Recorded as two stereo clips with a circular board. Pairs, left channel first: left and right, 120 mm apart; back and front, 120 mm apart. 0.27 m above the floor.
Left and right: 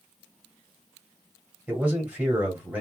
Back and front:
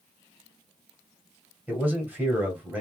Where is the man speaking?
45° right, 1.6 m.